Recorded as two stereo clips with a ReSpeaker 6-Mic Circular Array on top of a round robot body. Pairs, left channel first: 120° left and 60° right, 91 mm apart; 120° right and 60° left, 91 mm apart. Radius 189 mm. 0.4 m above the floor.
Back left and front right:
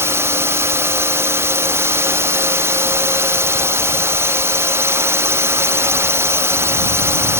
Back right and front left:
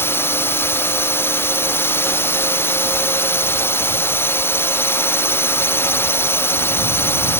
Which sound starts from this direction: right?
A drone, at 0.0 s.